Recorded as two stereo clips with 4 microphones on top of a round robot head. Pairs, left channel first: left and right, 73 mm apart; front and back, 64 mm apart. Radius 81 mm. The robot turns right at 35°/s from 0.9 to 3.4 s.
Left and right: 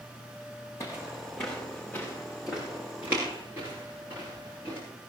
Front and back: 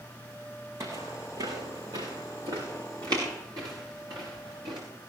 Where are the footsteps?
145° left, 4 m; by 4.8 s 160° right, 7 m.